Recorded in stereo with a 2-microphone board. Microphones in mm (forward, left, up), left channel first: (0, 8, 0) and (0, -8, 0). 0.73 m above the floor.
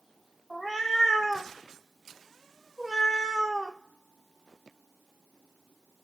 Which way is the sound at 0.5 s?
10° left (ahead or behind).